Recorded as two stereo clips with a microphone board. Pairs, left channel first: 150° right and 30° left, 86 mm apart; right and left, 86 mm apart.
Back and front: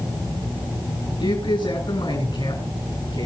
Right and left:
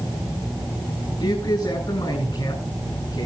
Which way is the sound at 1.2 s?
120° right.